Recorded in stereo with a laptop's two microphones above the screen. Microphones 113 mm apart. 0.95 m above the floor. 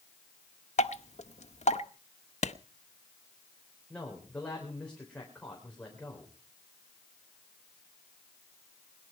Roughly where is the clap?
Left.